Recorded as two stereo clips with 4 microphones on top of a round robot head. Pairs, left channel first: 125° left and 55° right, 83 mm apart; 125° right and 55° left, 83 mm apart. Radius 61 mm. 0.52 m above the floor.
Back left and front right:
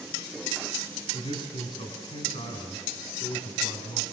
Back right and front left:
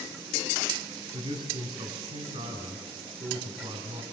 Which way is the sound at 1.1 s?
85° left.